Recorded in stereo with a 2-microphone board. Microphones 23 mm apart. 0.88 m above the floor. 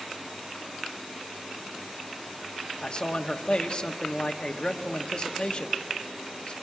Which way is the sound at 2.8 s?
40° left (ahead or behind).